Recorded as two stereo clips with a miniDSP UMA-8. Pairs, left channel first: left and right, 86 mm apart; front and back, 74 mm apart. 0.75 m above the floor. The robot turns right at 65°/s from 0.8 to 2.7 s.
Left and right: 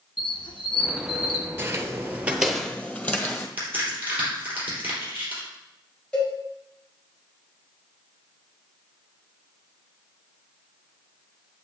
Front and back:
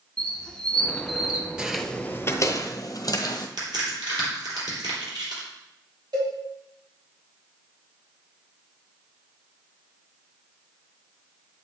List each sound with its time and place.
0.2 s a squeak: 75° left, 1.1 m; by 1.5 s 120° left, 1.1 m
1.6 s footsteps: 115° right, 0.8 m; by 3.5 s 25° left, 1.4 m
3.6 s a crack: 155° right, 4 m
6.1 s a cowbell: 170° left, 4 m